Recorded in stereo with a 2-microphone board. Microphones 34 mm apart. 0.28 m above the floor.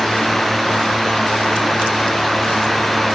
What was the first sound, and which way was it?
Only background noise.